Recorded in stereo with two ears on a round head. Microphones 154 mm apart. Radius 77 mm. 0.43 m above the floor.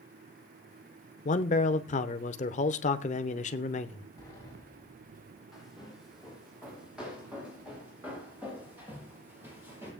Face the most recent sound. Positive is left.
turn(degrees=-15)  # may be behind; listen again after turning